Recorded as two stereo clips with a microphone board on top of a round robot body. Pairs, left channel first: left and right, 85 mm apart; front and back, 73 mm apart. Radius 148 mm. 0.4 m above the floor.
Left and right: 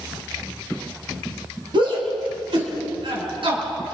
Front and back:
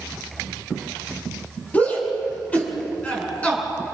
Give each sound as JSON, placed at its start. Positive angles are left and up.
{"t": 1.7, "sound": "a shout", "azimuth_deg": -70, "distance_m": 4.0}